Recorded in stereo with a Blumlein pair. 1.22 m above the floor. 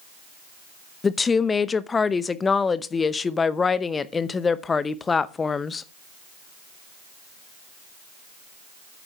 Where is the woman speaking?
15° left, 0.8 m.